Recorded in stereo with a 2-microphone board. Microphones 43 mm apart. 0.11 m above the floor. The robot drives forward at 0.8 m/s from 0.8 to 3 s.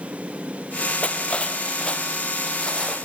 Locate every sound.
1.0 s cutlery clinking: 30° left (ahead or behind), 2 m; by 3.0 s 15° left (ahead or behind), 3.5 m